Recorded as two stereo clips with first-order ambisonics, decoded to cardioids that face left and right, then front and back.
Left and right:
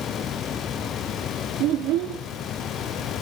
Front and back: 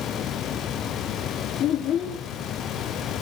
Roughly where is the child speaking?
Ahead right.